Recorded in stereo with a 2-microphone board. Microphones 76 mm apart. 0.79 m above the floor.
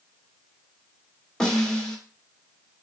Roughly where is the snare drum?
Centre.